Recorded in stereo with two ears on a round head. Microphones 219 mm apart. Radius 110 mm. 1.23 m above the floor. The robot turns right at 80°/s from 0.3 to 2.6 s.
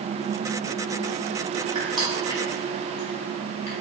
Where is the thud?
I don't hear a thud.